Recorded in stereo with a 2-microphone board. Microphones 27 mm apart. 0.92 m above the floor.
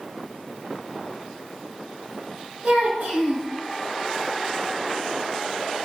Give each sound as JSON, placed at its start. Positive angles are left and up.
{"t": 2.6, "sound": "a child speaking", "side_deg": -75, "distance_m": 2.0}